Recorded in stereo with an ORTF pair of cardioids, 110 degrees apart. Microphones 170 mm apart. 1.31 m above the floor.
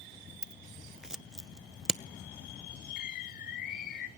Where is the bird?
60° left, 2 m.